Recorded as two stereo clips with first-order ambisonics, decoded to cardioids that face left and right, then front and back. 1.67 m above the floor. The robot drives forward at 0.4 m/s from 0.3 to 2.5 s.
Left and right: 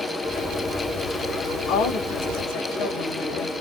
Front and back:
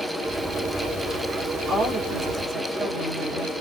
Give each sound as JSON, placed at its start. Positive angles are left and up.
{"t": 1.7, "sound": "a woman speaking", "azimuth_deg": 90, "distance_m": 1.7}